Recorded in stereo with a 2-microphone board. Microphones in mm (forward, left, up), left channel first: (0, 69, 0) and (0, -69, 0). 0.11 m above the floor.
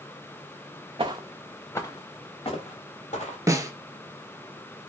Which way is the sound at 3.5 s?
25° right (ahead or behind).